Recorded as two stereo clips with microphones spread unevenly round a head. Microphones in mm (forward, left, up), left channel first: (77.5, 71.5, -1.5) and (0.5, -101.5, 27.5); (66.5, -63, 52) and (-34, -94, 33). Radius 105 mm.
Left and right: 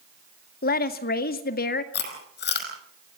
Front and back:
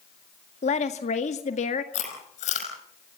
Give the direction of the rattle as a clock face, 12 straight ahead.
No rattle in this recording.